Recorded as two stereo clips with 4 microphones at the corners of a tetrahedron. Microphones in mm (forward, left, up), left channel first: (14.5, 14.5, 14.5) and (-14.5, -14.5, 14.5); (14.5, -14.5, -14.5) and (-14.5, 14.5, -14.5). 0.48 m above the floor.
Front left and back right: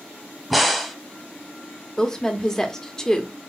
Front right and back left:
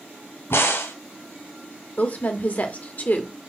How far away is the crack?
About 1.0 m.